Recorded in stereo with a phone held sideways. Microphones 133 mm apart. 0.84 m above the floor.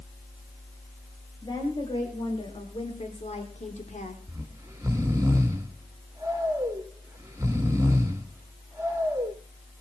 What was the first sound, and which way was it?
A woman speaking, 30° left (ahead or behind).